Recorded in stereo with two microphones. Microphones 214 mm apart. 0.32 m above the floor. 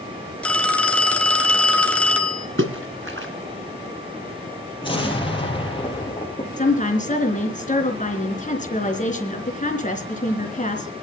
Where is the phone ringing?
5° left (ahead or behind), 2.5 m.